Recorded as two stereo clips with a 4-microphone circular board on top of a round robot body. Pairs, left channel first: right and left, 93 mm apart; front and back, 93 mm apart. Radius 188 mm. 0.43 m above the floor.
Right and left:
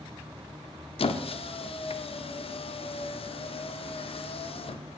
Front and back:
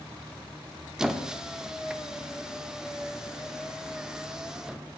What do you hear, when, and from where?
1.0 s a squeak: 95° right, 0.7 m